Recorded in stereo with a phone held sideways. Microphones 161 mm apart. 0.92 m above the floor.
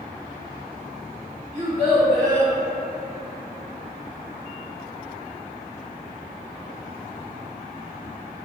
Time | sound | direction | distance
1.5 | a child speaking | 25° right (ahead or behind) | 1.7 m